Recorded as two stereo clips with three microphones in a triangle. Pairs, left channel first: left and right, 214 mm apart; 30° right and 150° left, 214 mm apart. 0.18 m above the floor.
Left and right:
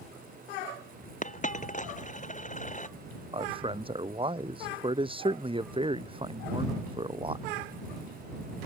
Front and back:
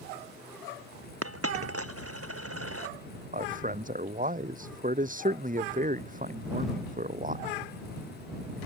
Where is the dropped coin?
145° left.